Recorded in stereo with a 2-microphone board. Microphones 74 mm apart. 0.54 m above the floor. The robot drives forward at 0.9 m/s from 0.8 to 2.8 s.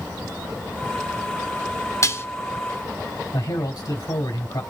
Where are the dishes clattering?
40° left (ahead or behind), 0.6 m; by 2.3 s 30° left (ahead or behind), 0.7 m.